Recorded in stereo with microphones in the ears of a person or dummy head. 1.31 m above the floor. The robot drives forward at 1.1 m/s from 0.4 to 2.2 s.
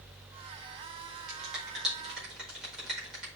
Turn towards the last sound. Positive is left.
turn(degrees=0)  # may be behind; listen again after turning